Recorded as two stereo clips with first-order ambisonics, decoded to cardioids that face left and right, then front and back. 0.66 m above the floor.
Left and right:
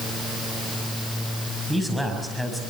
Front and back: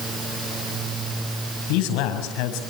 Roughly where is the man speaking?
Ahead.